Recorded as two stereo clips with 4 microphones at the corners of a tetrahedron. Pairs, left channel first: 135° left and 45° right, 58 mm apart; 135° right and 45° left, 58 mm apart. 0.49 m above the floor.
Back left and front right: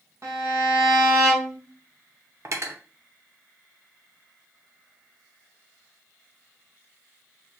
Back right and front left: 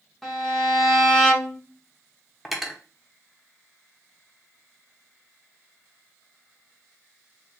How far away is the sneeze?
No sneeze in this recording.